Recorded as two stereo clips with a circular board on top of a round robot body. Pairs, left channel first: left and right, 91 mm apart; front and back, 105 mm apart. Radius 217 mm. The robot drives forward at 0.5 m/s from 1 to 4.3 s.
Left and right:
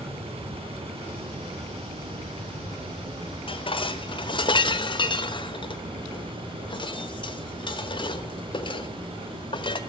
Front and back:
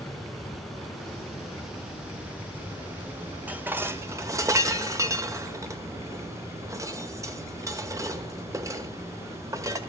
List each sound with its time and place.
0.0 s running water: 90° right, 3.5 m; by 9.9 s 115° right, 3.5 m
3.5 s dishes clattering: 105° left, 1.5 m; by 9.8 s 120° left, 1.6 m